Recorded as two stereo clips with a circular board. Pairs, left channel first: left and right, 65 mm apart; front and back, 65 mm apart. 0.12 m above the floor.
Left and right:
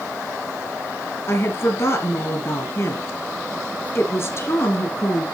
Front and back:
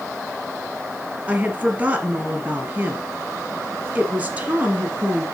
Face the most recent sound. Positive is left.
turn(degrees=120)